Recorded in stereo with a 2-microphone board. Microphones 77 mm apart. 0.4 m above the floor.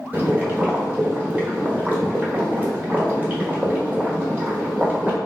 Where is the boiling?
20° right (ahead or behind), 1.1 m.